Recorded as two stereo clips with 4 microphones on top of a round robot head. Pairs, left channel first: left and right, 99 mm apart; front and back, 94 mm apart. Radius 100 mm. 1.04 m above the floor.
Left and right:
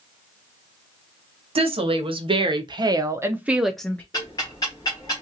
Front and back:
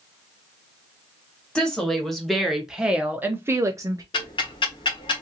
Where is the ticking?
25° left, 1.2 m.